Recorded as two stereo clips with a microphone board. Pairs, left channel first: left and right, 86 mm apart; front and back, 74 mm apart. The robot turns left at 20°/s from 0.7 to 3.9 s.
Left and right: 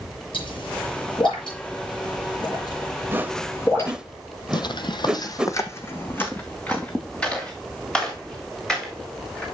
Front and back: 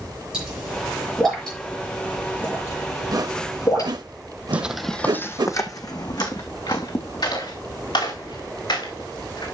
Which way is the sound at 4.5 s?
110° left.